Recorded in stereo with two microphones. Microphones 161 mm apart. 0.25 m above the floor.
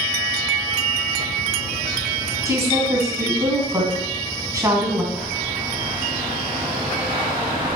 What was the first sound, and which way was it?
A woman speaking, 20° right (ahead or behind).